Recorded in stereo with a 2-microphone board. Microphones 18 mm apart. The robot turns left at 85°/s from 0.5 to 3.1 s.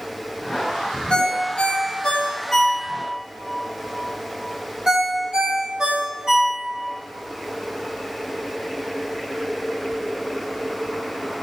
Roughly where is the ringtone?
Left.